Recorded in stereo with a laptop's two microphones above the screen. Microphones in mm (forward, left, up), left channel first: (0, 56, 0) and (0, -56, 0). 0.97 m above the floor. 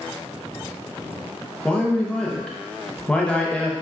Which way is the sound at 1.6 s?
10° left (ahead or behind).